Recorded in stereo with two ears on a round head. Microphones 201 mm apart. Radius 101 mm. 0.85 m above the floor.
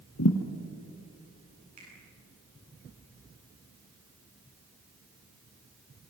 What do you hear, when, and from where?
0.2 s a thud: 65° left (ahead or behind), 2 m
1.8 s a finger snap: 40° right (ahead or behind), 9.5 m